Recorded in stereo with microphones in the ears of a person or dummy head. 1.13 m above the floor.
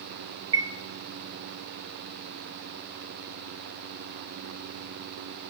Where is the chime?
15° right (ahead or behind), 0.6 m.